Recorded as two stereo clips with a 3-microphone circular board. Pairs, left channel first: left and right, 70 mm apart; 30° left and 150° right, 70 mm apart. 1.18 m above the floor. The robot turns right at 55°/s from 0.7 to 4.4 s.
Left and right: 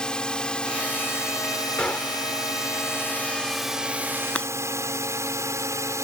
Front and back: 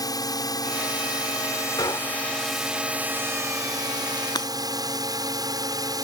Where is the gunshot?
15° left; by 2.4 s 45° left.